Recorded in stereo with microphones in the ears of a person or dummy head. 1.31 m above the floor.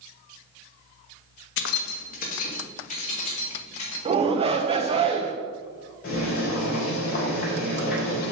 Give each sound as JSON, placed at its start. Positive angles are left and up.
{"t": 1.6, "sound": "keys jangling", "side_deg": 70, "distance_m": 0.7}
{"t": 4.0, "sound": "a shout", "side_deg": -30, "distance_m": 0.8}
{"t": 6.0, "sound": "boiling", "side_deg": 55, "distance_m": 3.5}